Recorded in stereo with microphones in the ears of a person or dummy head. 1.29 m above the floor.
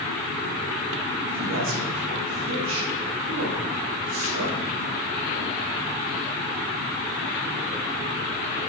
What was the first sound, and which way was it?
A man speaking, 75° right (ahead or behind).